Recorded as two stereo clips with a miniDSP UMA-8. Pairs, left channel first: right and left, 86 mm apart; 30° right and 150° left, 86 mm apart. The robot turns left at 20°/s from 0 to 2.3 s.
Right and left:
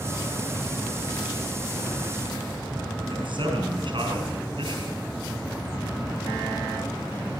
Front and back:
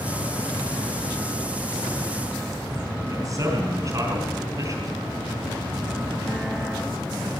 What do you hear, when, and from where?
3.1 s a man speaking: 100° left, 4 m